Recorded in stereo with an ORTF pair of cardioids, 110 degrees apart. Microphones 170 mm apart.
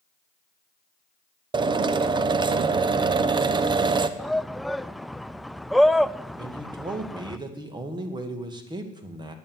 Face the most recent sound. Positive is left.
turn(degrees=-25)